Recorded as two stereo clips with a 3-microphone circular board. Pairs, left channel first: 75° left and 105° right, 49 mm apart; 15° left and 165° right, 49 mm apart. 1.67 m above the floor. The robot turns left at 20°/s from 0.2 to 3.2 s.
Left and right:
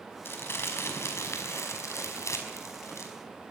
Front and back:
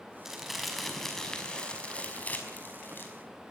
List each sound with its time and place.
0.2 s crumpling: 115° left, 5 m; by 3.1 s 55° left, 5 m